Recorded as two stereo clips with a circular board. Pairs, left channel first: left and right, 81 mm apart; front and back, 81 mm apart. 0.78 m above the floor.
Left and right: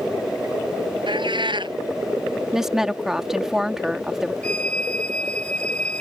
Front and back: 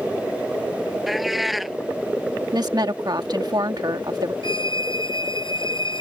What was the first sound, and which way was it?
A cat meowing, 90° right.